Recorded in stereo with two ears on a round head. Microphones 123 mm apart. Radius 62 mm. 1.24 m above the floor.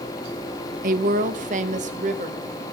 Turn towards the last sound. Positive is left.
turn(degrees=-55)  # may be behind; listen again after turning